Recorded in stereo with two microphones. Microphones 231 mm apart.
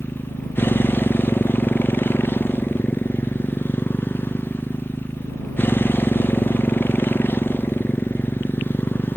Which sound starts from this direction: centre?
A motorcycle, at 0.0 s.